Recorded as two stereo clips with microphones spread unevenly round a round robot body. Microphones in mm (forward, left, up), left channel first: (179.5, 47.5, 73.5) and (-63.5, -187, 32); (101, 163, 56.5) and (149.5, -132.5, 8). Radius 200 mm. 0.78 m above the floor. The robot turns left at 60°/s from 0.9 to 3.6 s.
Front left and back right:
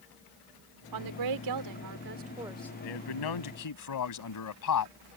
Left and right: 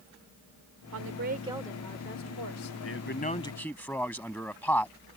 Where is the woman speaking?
125° right; by 2.7 s 125° left.